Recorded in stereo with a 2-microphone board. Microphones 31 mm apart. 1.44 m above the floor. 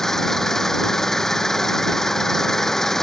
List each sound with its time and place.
0.0 s an engine running: 10° left (ahead or behind)